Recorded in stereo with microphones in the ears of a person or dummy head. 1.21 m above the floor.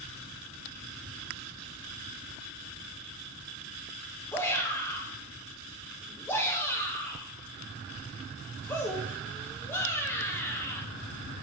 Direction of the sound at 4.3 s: 10° left (ahead or behind).